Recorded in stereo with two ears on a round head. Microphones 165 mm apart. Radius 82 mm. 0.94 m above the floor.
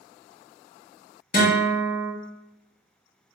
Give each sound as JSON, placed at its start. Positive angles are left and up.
{"t": 1.3, "sound": "a guitar", "side_deg": 45, "distance_m": 1.4}